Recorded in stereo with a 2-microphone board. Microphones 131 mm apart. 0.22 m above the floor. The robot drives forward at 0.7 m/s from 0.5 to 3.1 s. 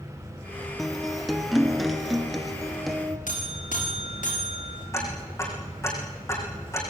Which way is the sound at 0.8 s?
Centre (ahead or behind).